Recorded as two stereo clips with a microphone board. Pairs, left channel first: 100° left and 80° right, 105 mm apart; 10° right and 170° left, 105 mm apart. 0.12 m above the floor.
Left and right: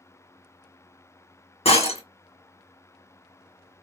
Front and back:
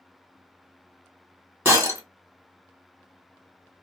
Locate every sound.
1.6 s breaking glass: 100° left, 1.1 m